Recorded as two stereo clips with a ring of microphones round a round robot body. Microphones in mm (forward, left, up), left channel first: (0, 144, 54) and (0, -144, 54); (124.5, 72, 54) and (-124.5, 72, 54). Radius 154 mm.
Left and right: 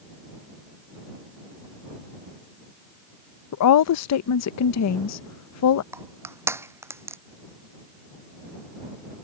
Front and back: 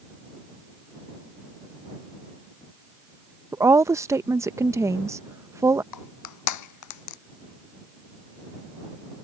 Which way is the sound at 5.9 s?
10° right.